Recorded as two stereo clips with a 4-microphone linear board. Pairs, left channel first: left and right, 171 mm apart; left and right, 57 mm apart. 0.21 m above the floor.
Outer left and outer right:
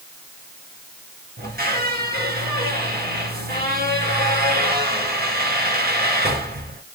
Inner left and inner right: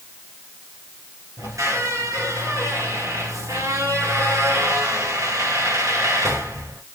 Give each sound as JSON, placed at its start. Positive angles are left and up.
{"t": 1.4, "sound": "a squeak", "side_deg": -65, "distance_m": 1.5}